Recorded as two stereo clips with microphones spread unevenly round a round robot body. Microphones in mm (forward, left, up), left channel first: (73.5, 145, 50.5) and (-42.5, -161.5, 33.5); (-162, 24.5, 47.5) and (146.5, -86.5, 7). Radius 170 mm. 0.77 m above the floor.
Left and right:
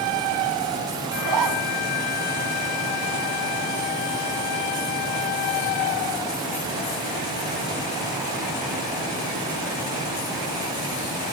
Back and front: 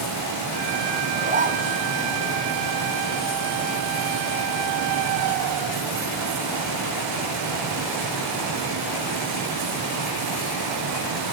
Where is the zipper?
85° right, 3 m.